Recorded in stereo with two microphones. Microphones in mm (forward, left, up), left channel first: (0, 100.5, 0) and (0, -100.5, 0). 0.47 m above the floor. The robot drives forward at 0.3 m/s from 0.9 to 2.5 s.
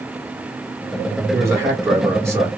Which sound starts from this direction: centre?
A man speaking, at 1.3 s.